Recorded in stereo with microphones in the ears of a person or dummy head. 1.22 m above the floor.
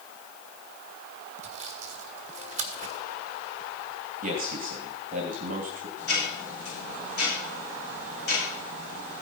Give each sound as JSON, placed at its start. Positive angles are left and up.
{"t": 1.4, "sound": "sawing", "side_deg": -40, "distance_m": 1.4}
{"t": 4.2, "sound": "a man speaking", "side_deg": -45, "distance_m": 2.0}
{"t": 6.0, "sound": "ticking", "side_deg": 55, "distance_m": 6.5}